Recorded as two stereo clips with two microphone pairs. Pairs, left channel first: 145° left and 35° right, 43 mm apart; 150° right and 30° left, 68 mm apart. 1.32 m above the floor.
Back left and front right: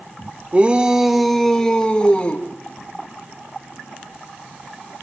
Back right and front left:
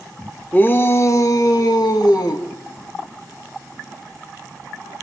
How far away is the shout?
About 1.6 m.